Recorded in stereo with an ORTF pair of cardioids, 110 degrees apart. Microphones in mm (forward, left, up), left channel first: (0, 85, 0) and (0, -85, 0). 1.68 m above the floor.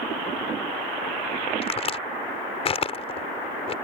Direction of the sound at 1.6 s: 35° left.